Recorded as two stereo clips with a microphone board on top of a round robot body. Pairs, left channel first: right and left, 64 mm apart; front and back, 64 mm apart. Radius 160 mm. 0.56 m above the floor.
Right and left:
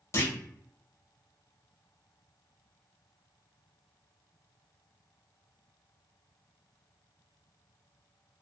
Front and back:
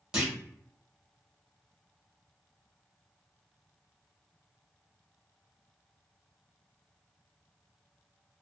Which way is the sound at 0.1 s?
105° right.